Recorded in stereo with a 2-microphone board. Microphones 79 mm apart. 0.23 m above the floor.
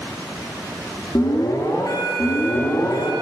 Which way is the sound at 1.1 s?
50° left (ahead or behind).